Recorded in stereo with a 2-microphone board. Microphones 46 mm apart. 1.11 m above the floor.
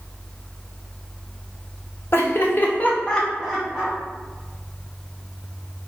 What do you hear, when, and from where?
2.1 s laughter: 65° left (ahead or behind), 0.7 m; by 4.0 s 20° right (ahead or behind), 0.7 m